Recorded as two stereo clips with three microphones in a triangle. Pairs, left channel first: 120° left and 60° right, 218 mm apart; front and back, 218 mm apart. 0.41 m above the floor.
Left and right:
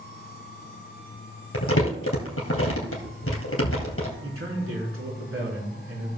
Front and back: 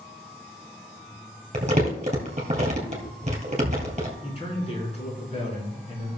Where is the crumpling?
125° left, 2.5 m.